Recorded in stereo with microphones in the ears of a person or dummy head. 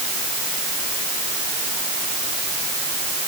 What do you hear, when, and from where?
Only background noise.